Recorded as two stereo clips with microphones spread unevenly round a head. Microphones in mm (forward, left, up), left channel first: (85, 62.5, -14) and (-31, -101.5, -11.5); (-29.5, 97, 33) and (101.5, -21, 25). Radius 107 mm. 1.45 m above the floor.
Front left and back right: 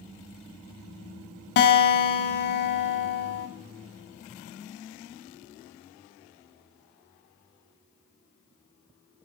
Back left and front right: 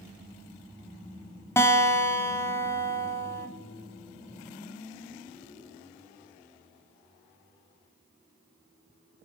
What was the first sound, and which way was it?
A guitar, 65° left.